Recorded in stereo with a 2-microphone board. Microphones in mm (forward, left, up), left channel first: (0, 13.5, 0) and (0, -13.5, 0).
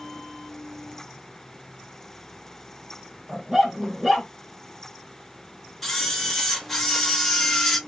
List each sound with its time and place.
3.3 s a dog barking: 10° right (ahead or behind), 1.7 m
5.8 s a camera shutter: 5° left (ahead or behind), 1.3 m